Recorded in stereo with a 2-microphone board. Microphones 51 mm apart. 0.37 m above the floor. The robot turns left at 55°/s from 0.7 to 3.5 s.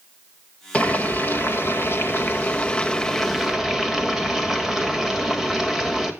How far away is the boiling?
About 1.6 m.